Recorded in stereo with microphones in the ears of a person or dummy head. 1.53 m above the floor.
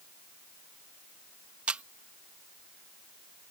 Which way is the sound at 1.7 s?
5° right (ahead or behind).